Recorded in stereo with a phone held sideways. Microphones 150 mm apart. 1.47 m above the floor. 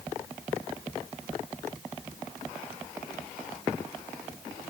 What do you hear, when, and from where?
Only background noise.